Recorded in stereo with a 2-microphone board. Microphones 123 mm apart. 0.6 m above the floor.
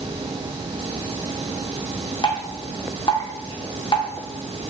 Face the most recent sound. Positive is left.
turn(degrees=40)  # may be behind; listen again after turning